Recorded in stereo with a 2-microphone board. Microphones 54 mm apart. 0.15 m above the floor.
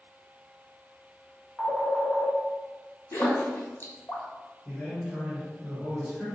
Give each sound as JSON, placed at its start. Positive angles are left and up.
{"t": 1.6, "sound": "a phone ringing", "side_deg": 30, "distance_m": 0.9}
{"t": 3.1, "sound": "a splash", "side_deg": 50, "distance_m": 1.0}
{"t": 4.7, "sound": "a man speaking", "side_deg": 5, "distance_m": 1.9}